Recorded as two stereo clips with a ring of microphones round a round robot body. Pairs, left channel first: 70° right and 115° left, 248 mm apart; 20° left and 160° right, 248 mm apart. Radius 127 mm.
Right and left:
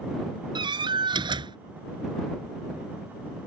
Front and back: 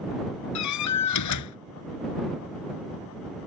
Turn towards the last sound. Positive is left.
turn(degrees=40)